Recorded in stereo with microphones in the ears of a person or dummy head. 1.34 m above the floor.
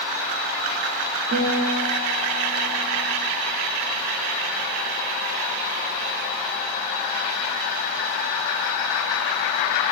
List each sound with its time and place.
1.3 s a guitar: 50° right (ahead or behind), 0.8 m